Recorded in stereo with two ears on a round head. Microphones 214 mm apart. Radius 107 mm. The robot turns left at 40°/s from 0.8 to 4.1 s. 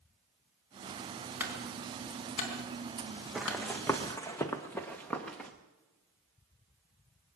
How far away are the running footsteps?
About 1.1 m.